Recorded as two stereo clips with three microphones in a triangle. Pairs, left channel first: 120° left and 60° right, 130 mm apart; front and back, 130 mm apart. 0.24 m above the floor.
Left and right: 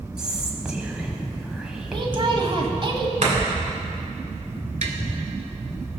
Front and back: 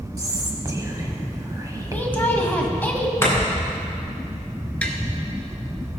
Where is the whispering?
140° right, 1.2 m.